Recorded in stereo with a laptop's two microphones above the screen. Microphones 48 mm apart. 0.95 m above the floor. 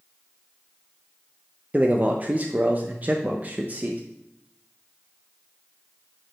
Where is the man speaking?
35° right (ahead or behind), 0.5 m.